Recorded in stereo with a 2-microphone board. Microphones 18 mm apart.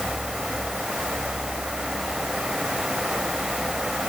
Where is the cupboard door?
No cupboard door in this recording.